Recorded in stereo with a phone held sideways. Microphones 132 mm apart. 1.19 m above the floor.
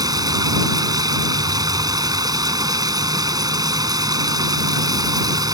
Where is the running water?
30° right (ahead or behind).